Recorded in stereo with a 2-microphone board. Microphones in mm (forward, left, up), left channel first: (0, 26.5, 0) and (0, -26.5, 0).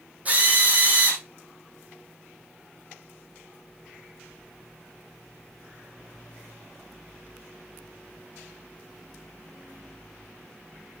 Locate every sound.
0.2 s a drill: 30° right (ahead or behind), 3.5 m